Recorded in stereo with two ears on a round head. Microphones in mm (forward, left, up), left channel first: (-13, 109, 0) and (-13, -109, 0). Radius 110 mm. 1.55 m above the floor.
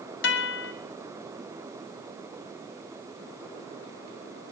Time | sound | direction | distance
0.2 | a guitar | 45° left (ahead or behind) | 1.0 m